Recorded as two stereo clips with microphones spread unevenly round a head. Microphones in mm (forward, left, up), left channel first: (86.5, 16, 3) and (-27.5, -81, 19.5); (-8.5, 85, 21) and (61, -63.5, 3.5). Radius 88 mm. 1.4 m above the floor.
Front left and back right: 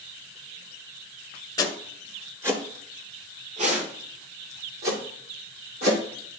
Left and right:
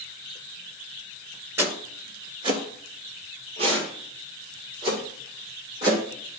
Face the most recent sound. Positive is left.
turn(degrees=-130)